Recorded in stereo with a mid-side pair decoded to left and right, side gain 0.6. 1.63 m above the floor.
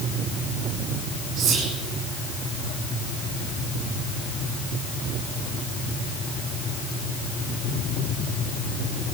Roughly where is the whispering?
Ahead right.